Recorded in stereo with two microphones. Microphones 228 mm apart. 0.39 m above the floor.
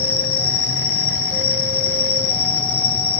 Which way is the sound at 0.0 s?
70° left (ahead or behind).